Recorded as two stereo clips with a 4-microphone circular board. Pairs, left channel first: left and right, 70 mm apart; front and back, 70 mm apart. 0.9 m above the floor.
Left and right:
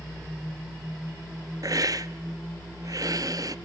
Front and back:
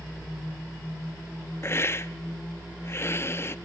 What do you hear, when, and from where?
1.6 s a hiss: 50° right, 0.5 m